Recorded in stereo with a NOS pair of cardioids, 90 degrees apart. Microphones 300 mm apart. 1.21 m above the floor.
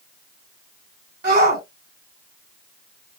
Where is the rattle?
No rattle in this recording.